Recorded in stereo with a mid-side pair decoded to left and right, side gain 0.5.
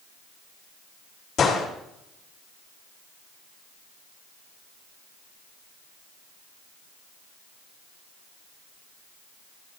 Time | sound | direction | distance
1.4 | a gunshot | 55° left | 5 m